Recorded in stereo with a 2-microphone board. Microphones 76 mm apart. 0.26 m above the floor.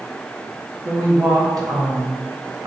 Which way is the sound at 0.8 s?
45° right (ahead or behind).